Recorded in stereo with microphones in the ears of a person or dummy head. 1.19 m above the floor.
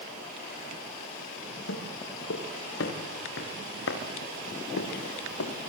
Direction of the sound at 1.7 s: 70° left (ahead or behind).